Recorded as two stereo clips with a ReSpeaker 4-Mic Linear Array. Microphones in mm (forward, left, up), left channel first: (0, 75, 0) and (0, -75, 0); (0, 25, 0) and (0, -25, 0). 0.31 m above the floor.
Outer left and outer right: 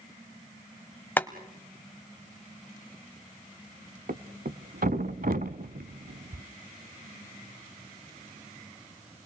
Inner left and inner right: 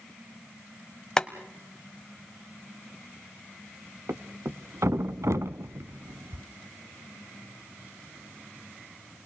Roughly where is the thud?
Right.